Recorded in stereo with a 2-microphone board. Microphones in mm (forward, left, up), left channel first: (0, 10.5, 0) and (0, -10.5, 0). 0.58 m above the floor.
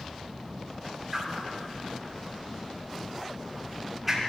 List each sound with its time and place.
1.1 s a whoosh: 10° right (ahead or behind), 4 m